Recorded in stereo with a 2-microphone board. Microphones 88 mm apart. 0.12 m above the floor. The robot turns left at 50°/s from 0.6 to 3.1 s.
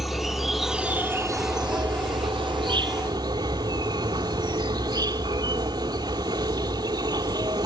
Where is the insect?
Straight ahead, 1.1 m; by 7.7 s 125° right, 1.1 m.